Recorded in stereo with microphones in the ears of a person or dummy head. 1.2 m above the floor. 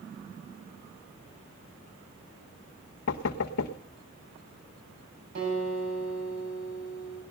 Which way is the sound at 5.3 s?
60° right (ahead or behind).